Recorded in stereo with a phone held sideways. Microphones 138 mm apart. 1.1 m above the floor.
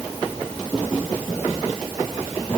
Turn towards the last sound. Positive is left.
No sound to turn to.